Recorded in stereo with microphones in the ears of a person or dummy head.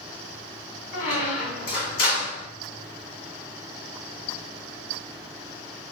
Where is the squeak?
50° left (ahead or behind), 1.1 m.